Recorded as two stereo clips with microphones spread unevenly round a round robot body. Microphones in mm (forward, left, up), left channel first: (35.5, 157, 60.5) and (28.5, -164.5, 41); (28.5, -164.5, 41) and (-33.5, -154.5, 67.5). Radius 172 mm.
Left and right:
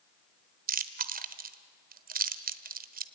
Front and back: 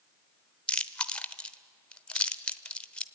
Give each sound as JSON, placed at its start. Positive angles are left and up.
{"t": 0.7, "sound": "chewing", "azimuth_deg": -45, "distance_m": 1.0}